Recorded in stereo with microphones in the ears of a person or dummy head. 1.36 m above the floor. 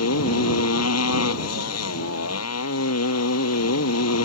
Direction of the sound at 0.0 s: 90° left.